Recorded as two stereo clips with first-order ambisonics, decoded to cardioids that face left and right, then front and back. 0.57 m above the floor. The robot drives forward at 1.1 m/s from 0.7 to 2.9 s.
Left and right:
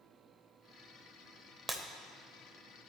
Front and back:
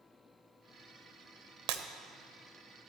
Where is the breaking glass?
170° right, 0.9 m; by 1.8 s 175° right, 1.1 m.